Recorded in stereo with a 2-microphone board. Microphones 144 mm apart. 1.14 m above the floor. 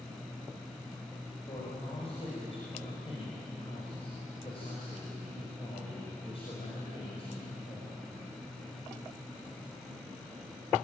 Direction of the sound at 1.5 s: 40° left (ahead or behind).